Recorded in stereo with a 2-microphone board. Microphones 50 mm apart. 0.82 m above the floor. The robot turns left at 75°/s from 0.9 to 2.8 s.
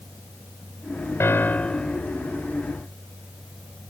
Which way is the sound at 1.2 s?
60° left.